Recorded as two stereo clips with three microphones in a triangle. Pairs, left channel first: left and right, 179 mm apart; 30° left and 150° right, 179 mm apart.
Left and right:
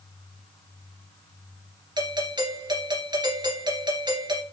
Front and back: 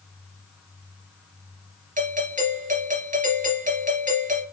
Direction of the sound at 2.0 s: 145° right.